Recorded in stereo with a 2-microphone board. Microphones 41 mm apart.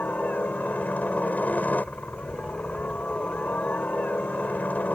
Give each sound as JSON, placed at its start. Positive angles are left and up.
{"t": 0.0, "sound": "a helicopter", "side_deg": 40}